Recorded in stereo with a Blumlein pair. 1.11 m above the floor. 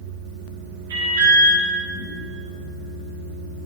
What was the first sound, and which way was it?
An alarm, 65° right.